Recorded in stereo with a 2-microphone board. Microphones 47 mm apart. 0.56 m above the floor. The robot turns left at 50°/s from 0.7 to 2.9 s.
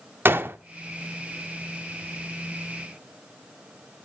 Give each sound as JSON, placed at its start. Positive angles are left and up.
{"t": 0.2, "sound": "a gunshot", "side_deg": -55, "distance_m": 0.6}